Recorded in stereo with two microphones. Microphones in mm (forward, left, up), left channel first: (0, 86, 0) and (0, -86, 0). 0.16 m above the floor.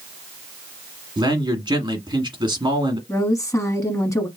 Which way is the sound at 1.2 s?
25° right (ahead or behind).